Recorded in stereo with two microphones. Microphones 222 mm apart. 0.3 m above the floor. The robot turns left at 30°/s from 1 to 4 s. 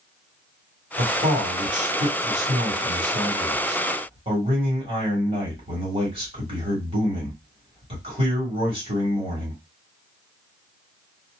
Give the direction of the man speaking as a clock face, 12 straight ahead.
2 o'clock.